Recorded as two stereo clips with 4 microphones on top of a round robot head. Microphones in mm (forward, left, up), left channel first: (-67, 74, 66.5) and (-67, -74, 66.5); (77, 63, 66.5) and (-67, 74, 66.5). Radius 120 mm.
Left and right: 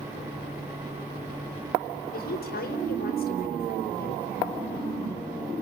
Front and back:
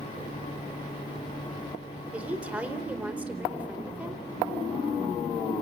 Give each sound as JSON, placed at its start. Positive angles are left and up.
{"t": 2.1, "sound": "a woman speaking", "azimuth_deg": 95, "distance_m": 4.5}